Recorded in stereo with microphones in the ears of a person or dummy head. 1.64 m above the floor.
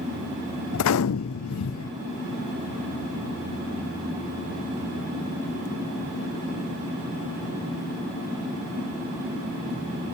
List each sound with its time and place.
0.7 s a gunshot: 75° left (ahead or behind), 0.6 m